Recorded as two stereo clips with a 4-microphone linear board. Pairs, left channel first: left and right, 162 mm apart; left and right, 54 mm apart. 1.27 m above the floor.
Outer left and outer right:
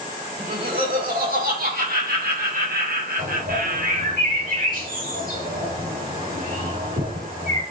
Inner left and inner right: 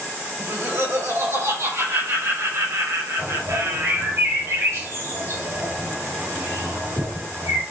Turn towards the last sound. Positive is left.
turn(degrees=-55)  # may be behind; listen again after turning